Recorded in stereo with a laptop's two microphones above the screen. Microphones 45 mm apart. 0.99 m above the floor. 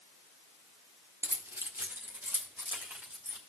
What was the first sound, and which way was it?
Keys jangling, 70° right (ahead or behind).